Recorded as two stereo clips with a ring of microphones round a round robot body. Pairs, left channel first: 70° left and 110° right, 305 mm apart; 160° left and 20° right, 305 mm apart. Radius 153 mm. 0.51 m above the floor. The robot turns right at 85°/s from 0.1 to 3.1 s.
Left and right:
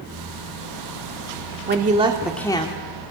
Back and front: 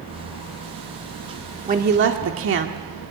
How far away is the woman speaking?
About 1.6 m.